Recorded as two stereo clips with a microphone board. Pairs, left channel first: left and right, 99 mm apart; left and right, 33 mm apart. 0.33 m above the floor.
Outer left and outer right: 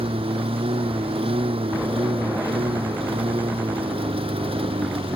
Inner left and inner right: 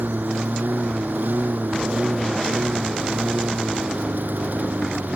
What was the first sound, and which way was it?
A lawn mower, 65° right (ahead or behind).